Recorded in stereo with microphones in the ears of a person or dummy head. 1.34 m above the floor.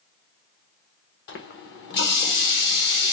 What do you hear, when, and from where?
1.3 s a running tap: 55° left (ahead or behind), 0.8 m